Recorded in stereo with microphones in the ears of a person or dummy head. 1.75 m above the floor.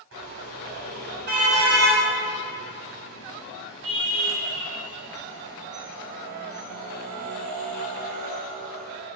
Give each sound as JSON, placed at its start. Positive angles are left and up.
{"t": 0.1, "sound": "a car horn", "side_deg": -65, "distance_m": 7.5}